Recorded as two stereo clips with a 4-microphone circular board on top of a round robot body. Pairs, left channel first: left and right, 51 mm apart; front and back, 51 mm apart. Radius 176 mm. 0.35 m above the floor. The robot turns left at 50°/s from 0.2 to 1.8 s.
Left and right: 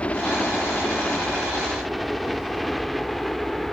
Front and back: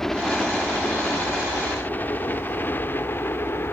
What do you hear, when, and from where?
0.0 s a helicopter: 70° left; by 3.7 s 5° left